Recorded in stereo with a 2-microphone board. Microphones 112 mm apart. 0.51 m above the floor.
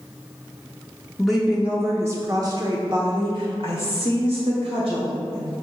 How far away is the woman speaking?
About 0.9 m.